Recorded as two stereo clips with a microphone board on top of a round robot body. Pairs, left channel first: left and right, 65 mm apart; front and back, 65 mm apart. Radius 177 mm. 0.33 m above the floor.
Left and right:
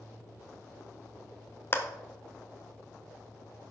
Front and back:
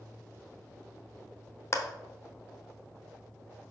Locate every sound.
1.7 s a clap: 40° left, 1.2 m